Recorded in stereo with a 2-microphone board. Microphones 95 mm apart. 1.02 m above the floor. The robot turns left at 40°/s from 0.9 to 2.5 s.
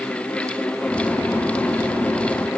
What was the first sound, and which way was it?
Only background noise.